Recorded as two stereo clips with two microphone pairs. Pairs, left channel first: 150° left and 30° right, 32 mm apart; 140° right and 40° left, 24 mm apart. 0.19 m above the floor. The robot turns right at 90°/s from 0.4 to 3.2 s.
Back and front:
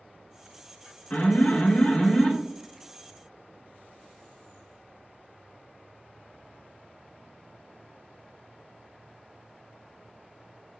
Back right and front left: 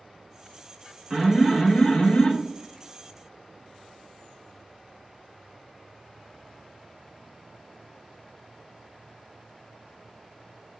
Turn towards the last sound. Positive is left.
turn(degrees=-60)